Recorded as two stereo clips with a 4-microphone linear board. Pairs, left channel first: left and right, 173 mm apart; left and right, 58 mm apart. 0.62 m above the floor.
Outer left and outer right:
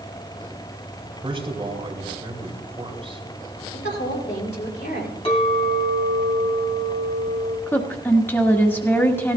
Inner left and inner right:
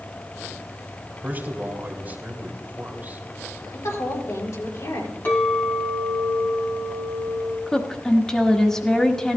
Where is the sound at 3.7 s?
80° left, 4 m.